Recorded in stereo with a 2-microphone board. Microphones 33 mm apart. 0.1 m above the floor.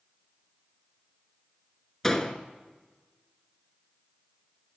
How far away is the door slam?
About 0.7 m.